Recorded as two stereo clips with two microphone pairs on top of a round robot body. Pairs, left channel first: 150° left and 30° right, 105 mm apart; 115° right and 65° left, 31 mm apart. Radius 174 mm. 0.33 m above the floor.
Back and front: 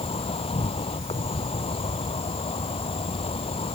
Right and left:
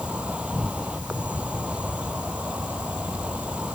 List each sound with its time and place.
0.0 s an insect: 115° left